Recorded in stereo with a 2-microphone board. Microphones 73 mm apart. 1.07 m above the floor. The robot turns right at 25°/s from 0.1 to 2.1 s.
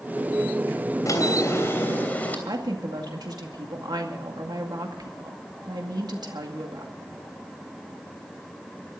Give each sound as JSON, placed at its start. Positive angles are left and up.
{"t": 1.1, "sound": "a drawer", "side_deg": 45, "distance_m": 3.0}
{"t": 2.5, "sound": "a woman speaking", "side_deg": -65, "distance_m": 2.0}